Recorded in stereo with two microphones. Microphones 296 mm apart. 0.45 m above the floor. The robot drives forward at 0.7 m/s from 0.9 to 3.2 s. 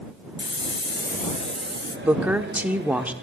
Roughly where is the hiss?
Left.